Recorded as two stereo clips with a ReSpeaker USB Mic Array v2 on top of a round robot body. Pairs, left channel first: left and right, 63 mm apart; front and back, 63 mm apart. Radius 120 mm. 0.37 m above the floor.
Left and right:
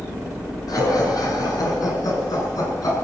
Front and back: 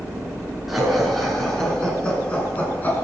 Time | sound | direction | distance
0.7 | laughter | 90° left | 7 m